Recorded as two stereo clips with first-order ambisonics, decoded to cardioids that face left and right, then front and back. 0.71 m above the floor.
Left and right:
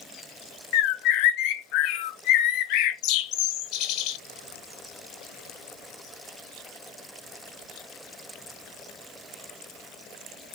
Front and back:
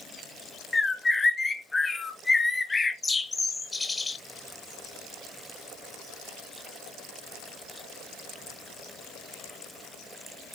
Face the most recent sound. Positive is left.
turn(degrees=80)